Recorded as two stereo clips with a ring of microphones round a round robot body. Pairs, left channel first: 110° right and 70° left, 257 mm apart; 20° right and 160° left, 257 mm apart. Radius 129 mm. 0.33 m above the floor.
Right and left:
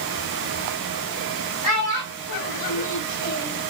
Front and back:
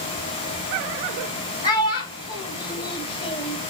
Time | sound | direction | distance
1.6 | a child speaking | 95° right | 1.4 m